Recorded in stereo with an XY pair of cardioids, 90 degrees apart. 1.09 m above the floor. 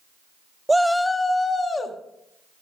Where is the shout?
15° right, 0.5 m; by 2.0 s 35° left, 1.8 m.